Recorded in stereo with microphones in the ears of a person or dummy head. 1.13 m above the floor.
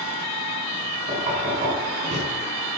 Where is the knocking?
30° right (ahead or behind), 6.5 m.